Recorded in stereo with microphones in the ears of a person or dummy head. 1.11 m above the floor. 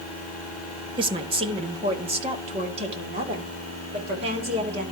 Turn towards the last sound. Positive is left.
turn(degrees=-30)  # may be behind; listen again after turning